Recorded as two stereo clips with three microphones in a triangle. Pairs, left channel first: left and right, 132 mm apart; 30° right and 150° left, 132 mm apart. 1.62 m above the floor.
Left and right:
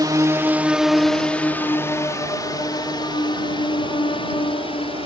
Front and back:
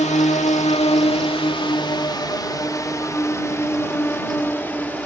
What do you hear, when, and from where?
0.0 s a drone: 35° right; by 5.1 s 45° left